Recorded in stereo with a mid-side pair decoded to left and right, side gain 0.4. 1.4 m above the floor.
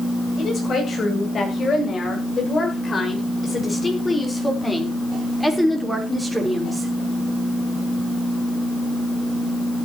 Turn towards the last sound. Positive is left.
turn(degrees=-15)